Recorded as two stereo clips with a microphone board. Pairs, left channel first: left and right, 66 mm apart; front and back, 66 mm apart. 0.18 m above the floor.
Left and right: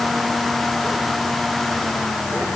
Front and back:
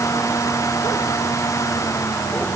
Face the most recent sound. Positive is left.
No sound to turn to.